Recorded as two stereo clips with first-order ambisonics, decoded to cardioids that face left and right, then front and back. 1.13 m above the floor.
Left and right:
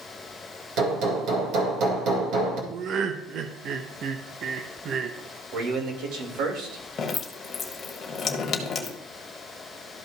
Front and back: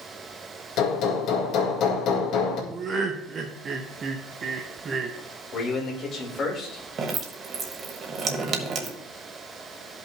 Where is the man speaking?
60° right, 2.5 m.